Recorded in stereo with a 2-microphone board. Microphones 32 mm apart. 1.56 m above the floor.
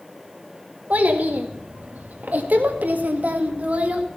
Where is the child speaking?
55° right (ahead or behind), 2 m; by 4.0 s 50° right (ahead or behind), 1.8 m.